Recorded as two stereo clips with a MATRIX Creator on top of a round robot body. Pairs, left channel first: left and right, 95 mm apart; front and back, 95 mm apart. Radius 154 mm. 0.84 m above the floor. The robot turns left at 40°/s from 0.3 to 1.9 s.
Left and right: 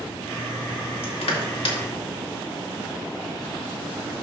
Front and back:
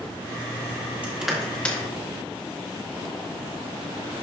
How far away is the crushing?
About 1.9 m.